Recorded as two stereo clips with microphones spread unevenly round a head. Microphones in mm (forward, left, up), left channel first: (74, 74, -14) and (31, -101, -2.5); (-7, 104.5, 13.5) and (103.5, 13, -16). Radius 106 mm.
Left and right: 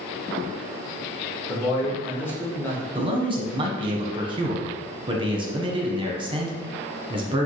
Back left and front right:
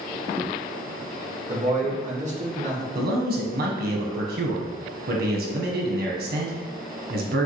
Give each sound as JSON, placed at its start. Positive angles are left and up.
{"t": 1.5, "sound": "a man speaking", "azimuth_deg": 0, "distance_m": 1.3}
{"t": 3.0, "sound": "a man speaking", "azimuth_deg": -40, "distance_m": 1.1}